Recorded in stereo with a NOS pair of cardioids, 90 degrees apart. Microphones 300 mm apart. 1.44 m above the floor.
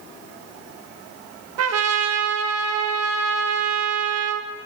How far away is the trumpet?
About 1.5 m.